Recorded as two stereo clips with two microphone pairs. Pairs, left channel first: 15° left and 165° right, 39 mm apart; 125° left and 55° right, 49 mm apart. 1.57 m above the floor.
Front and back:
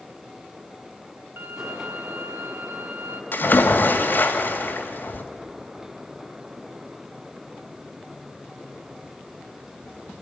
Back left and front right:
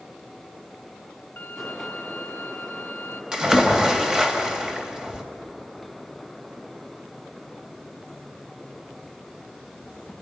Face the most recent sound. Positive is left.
turn(degrees=20)